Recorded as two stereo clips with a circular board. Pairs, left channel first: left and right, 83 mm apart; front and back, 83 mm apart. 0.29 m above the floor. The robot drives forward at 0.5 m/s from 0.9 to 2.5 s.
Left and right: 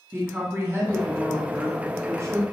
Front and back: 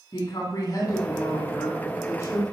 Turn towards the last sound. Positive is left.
turn(degrees=-50)